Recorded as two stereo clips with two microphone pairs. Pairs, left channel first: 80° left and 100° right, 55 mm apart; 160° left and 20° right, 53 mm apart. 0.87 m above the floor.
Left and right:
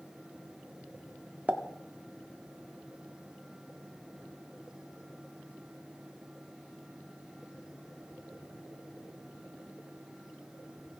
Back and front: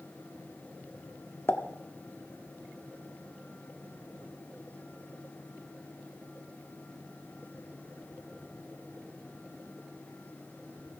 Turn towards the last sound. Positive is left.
turn(degrees=-160)